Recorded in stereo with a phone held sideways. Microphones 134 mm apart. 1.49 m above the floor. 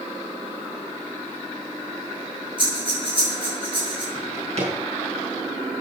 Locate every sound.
2.6 s breathing: 40° right (ahead or behind), 8 m
4.2 s a drawer: 50° right (ahead or behind), 4.5 m